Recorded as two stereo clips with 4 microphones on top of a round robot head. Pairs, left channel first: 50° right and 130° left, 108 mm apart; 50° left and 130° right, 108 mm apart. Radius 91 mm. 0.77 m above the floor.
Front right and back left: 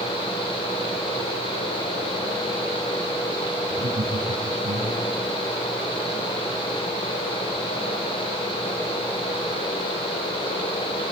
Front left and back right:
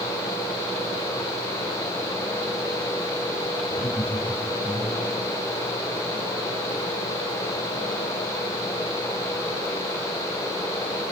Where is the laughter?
130° left, 6 m.